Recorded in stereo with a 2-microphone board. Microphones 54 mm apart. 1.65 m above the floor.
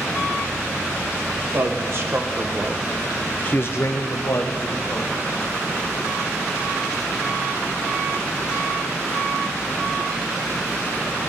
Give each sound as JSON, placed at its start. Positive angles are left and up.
{"t": 1.4, "sound": "a man speaking", "side_deg": -55, "distance_m": 2.0}